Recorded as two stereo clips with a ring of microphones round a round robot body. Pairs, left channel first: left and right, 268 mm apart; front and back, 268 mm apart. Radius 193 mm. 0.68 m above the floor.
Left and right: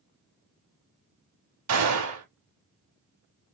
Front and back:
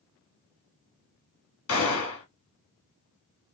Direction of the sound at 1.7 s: 50° right.